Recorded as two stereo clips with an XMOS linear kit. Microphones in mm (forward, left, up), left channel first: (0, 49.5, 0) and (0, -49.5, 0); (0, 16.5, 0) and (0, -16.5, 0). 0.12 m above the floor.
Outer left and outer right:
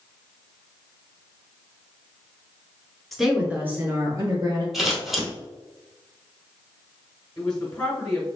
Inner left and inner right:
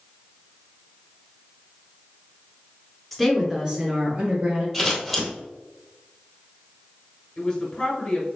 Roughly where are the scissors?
Centre.